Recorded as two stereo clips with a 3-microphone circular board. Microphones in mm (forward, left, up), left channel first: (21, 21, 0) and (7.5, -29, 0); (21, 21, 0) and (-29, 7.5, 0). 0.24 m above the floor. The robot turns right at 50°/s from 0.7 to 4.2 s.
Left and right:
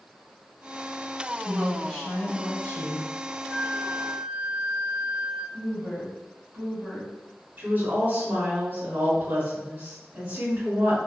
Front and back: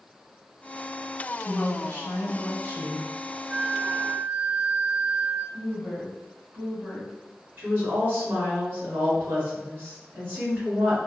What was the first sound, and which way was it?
A woman speaking, 25° right.